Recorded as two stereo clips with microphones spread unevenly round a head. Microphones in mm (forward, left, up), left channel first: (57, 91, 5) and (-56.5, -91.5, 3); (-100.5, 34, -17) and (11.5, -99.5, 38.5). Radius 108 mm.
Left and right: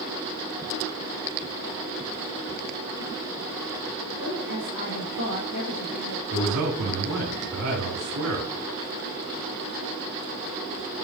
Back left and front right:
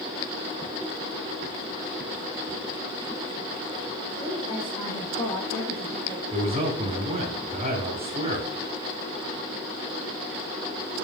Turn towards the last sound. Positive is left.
turn(degrees=-105)